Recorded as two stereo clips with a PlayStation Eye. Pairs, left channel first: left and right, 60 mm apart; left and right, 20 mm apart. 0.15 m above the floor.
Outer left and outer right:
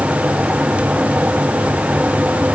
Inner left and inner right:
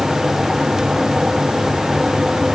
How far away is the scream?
No scream in this recording.